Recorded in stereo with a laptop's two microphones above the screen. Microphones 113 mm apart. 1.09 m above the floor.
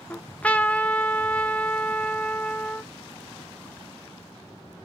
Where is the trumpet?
10° left (ahead or behind), 0.7 m.